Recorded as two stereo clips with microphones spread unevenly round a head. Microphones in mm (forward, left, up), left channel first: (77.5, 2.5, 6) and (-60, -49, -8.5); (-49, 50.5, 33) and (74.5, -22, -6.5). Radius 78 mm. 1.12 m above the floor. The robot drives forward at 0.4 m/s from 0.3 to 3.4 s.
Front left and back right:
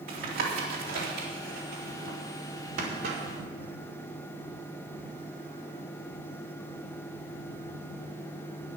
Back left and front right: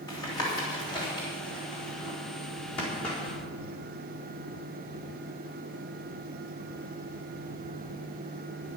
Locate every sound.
0.1 s tapping: 140° right, 3 m; by 3.2 s 150° right, 4 m